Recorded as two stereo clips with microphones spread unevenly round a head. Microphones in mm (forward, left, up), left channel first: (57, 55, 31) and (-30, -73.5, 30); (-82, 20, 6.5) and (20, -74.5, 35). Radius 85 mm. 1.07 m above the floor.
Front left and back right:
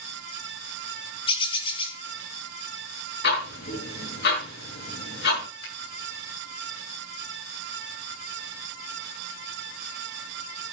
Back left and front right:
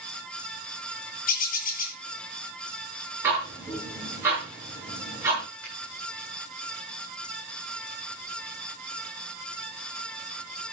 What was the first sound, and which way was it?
A bird, 115° left.